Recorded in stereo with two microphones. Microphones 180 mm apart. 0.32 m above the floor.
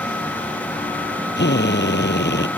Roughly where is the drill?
Left.